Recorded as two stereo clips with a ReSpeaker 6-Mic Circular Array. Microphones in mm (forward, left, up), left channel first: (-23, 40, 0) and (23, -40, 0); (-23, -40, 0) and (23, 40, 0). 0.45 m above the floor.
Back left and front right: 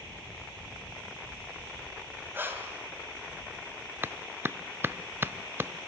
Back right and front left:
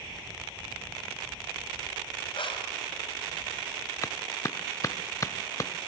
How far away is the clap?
About 0.6 m.